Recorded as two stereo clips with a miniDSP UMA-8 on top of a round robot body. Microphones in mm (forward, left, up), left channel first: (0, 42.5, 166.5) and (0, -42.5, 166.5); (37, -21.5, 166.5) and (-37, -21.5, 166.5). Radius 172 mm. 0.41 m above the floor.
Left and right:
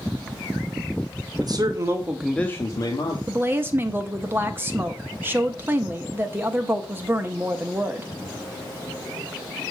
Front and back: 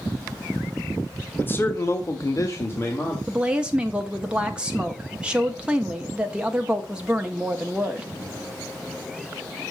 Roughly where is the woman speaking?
Behind right.